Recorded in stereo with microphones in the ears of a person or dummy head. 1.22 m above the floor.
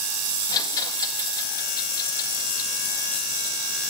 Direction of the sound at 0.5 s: 20° left (ahead or behind).